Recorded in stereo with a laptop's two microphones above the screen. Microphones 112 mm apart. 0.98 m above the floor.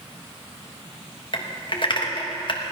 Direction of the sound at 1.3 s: 45° left (ahead or behind).